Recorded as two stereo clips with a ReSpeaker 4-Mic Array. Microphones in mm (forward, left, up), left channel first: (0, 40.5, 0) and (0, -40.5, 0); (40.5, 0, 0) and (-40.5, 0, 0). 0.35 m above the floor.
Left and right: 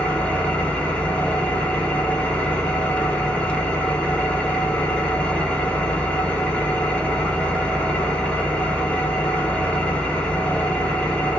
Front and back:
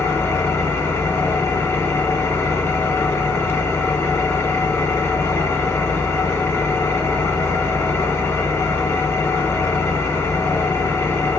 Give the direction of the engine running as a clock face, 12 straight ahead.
11 o'clock.